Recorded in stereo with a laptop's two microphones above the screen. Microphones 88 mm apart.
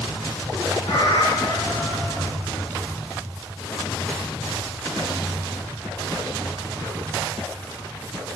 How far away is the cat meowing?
About 1.6 m.